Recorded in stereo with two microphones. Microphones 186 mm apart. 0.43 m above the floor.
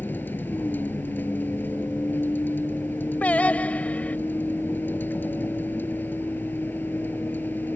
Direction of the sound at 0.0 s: 10° left (ahead or behind).